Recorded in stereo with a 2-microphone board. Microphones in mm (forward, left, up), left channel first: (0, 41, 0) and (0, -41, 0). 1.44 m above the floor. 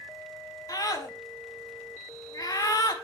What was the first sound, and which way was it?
A scream, 50° left (ahead or behind).